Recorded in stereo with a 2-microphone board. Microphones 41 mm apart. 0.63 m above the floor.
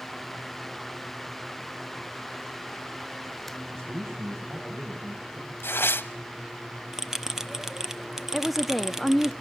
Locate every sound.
3.7 s a man speaking: 80° right, 4 m; by 5.5 s 70° right (ahead or behind), 6 m
5.6 s tearing paper: 70° left (ahead or behind), 0.9 m
6.9 s a bell: 10° right (ahead or behind), 0.9 m
8.3 s a woman speaking: centre (ahead or behind), 0.6 m